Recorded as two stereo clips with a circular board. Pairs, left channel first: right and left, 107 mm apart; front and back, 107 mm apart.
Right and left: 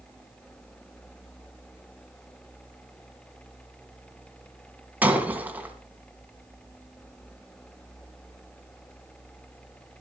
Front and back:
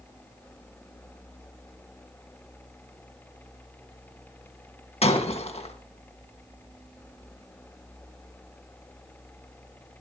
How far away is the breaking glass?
About 2.0 m.